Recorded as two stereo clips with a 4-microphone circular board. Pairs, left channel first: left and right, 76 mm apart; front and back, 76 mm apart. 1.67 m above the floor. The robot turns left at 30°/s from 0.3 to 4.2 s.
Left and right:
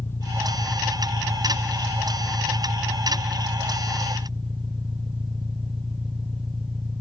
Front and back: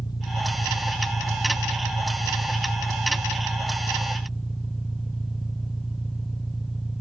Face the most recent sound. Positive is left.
turn(degrees=-90)